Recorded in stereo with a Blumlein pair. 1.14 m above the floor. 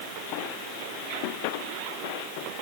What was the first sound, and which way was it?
Only background noise.